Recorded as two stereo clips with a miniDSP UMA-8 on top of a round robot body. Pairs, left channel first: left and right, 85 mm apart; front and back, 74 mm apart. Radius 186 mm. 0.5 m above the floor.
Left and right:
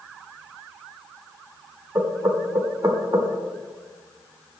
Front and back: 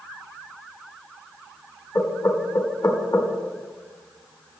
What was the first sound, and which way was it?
Knocking, 35° right.